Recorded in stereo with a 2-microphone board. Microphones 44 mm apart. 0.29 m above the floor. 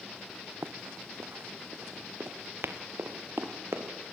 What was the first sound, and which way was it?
Running footsteps, 65° right (ahead or behind).